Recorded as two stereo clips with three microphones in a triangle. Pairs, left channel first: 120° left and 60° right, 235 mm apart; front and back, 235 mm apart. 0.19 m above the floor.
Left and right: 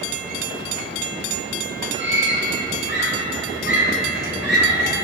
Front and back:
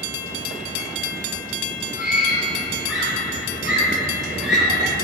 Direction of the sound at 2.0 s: 95° right.